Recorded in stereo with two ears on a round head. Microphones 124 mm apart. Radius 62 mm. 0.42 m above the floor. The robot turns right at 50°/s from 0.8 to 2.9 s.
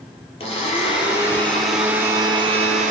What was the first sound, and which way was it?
A blender, 135° left.